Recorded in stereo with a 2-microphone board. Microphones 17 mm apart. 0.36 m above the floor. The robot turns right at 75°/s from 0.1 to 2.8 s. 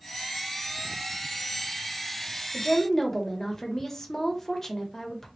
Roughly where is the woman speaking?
Left.